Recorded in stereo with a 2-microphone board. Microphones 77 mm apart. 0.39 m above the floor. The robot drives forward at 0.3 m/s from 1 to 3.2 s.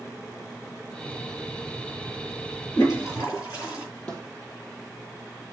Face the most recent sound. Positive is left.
turn(degrees=15)  # may be behind; listen again after turning